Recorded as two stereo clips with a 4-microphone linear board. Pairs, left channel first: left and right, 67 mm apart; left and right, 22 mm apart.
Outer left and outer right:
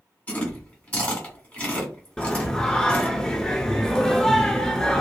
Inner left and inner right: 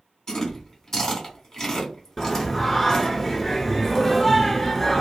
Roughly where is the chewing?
Left.